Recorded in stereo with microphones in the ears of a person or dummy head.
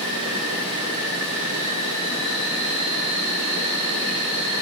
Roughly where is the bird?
No bird in this recording.